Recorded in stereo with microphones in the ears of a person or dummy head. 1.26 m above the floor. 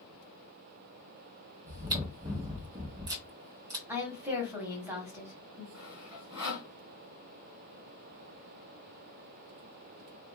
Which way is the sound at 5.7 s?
20° right (ahead or behind).